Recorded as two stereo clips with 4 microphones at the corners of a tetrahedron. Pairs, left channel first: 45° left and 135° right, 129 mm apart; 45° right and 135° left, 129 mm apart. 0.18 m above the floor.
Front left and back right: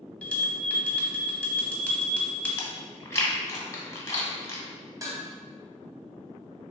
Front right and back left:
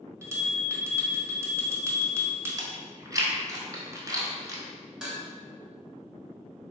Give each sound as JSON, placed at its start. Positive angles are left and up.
{"t": 0.2, "sound": "a bell", "azimuth_deg": 110, "distance_m": 0.8}
{"t": 2.6, "sound": "chewing", "azimuth_deg": 95, "distance_m": 0.7}
{"t": 5.0, "sound": "dishes clattering", "azimuth_deg": -150, "distance_m": 0.9}